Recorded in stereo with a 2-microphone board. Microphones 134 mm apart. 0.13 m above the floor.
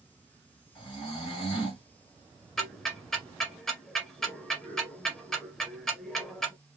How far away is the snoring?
About 2.5 m.